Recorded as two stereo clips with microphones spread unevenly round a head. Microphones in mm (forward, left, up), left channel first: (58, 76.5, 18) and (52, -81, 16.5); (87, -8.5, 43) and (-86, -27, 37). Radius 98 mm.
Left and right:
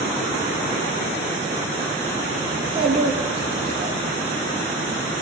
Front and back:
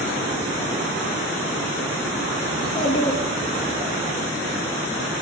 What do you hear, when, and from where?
2.5 s a child speaking: 35° right, 1.4 m; by 4.0 s 105° right, 1.1 m